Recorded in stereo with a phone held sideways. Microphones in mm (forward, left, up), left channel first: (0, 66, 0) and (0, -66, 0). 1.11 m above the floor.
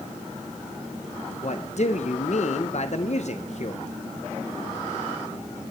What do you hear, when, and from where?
1.4 s a man speaking: 60° left (ahead or behind), 0.7 m